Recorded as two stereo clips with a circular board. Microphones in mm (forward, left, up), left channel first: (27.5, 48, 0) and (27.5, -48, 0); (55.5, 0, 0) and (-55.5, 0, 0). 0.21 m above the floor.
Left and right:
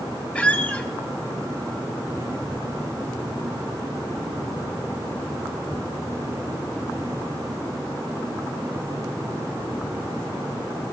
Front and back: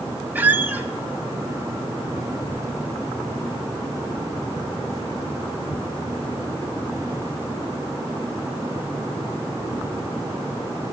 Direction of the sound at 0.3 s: 140° left.